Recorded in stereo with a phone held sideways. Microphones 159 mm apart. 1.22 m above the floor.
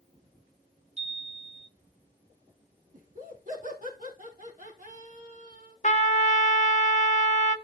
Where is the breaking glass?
I don't hear breaking glass.